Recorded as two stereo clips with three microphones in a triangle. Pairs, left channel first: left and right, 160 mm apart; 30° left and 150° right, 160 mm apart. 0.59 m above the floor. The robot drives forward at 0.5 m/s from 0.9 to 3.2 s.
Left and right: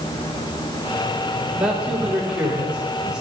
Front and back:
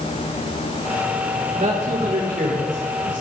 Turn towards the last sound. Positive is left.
turn(degrees=-175)